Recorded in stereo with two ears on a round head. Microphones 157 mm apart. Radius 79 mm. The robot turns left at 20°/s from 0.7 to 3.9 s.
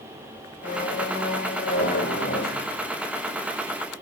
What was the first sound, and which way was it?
A squeak, 120° left.